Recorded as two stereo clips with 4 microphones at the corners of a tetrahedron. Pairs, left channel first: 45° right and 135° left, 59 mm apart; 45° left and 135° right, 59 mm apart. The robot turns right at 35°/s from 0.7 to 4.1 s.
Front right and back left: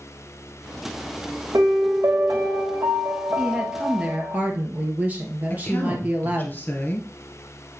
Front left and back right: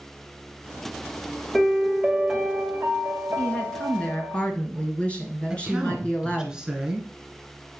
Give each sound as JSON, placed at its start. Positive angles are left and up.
{"t": 1.5, "sound": "a piano", "azimuth_deg": 130, "distance_m": 1.3}
{"t": 3.4, "sound": "a woman speaking", "azimuth_deg": 70, "distance_m": 1.7}
{"t": 5.5, "sound": "a woman speaking", "azimuth_deg": -65, "distance_m": 1.5}